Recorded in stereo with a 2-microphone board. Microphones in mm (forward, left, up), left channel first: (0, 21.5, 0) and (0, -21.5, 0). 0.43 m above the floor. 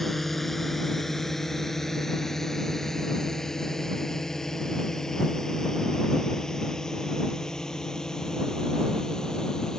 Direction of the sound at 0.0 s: 5° left (ahead or behind).